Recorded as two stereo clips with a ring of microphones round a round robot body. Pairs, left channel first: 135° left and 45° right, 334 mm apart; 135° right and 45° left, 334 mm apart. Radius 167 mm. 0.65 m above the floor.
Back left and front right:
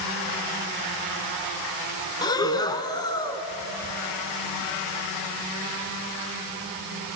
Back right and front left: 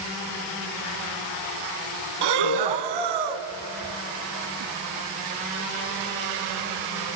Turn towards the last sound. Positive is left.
turn(degrees=55)